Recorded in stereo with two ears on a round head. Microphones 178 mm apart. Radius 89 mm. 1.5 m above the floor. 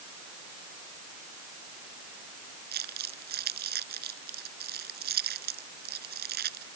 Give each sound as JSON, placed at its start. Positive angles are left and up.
{"t": 2.7, "sound": "crumpling", "side_deg": -50}